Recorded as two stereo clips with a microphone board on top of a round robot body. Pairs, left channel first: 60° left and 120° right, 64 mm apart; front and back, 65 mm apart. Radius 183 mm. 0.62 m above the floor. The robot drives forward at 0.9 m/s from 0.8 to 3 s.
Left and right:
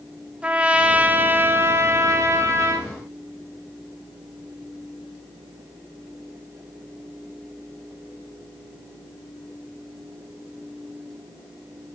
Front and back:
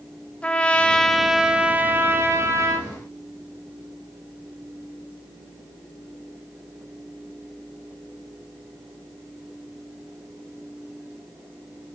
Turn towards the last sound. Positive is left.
turn(degrees=-155)